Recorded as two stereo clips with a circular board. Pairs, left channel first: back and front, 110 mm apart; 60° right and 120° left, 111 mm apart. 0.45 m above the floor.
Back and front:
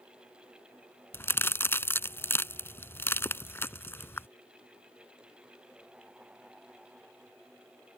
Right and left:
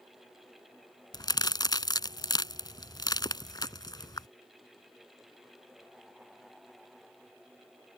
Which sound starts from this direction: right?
A crack, at 1.1 s.